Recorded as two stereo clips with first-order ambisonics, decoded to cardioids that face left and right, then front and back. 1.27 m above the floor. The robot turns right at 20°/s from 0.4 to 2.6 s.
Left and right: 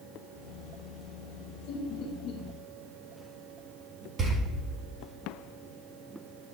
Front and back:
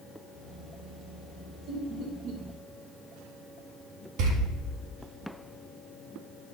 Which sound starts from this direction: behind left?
Laughter, at 1.7 s.